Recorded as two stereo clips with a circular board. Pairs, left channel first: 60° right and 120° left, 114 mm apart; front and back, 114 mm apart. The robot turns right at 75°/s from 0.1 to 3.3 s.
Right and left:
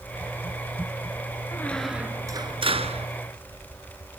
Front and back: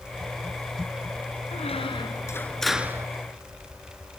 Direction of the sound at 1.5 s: 5° left.